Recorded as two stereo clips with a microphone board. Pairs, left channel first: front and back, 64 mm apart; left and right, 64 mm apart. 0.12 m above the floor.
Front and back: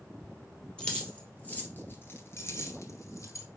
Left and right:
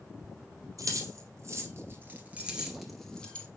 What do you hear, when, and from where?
0.8 s keys jangling: 70° right, 2 m; by 3.5 s 25° left, 1.6 m